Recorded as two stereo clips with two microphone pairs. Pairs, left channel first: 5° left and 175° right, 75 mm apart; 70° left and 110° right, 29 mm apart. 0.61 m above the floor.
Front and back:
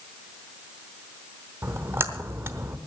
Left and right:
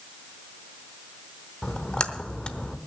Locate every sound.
1.6 s a splash: 130° left, 0.9 m